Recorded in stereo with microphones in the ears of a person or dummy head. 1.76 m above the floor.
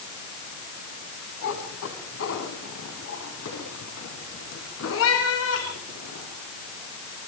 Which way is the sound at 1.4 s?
75° left (ahead or behind).